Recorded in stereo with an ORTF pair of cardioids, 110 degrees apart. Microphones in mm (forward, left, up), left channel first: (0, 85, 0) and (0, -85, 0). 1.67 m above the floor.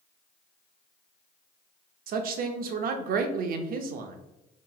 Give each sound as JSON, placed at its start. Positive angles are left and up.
{"t": 2.1, "sound": "a woman speaking", "azimuth_deg": -60, "distance_m": 0.5}